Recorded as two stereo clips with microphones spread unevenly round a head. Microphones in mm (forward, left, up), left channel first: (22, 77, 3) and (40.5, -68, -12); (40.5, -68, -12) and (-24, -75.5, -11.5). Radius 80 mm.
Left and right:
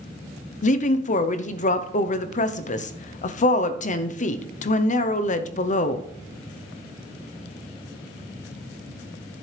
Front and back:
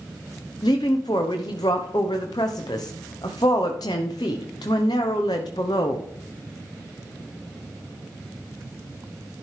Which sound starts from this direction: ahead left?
A woman speaking, at 0.6 s.